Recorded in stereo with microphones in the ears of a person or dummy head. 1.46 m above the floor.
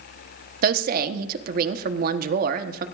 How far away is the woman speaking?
About 1.0 m.